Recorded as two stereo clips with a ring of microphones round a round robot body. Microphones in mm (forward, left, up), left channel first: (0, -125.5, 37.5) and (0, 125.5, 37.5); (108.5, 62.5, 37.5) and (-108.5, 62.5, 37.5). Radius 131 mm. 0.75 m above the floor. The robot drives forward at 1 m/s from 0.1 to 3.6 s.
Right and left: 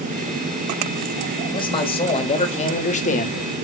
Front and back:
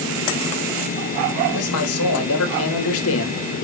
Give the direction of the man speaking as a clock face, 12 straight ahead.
1 o'clock.